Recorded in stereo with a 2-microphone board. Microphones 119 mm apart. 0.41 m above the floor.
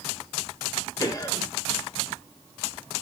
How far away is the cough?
About 1.8 m.